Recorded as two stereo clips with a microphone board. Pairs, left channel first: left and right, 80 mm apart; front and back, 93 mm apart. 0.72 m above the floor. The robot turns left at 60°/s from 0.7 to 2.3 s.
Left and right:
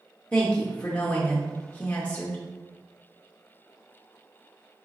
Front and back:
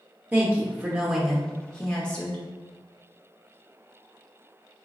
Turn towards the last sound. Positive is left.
turn(degrees=40)